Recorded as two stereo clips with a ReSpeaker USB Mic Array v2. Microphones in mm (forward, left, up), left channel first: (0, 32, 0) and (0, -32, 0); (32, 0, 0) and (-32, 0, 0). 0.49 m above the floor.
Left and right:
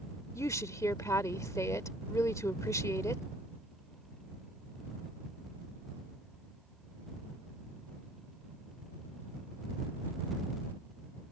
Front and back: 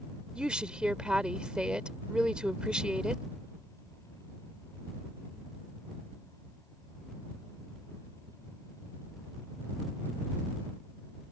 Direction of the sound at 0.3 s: 105° left.